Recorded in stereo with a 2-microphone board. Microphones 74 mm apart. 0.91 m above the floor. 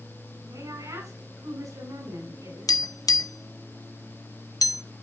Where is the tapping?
65° left (ahead or behind), 0.5 m.